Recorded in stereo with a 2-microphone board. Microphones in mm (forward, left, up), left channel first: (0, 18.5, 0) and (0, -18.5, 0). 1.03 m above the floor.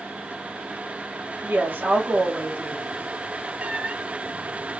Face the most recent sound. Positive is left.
turn(degrees=-40)  # may be behind; listen again after turning